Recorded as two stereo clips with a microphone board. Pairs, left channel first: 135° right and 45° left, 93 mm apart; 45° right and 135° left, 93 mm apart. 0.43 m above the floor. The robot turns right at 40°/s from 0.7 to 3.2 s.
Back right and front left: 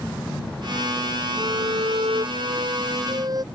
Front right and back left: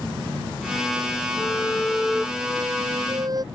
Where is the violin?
15° left; by 3.4 s 90° left.